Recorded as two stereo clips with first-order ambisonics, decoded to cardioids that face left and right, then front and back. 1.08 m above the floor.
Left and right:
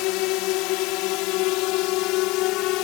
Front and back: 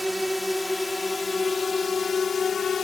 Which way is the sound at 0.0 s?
95° left.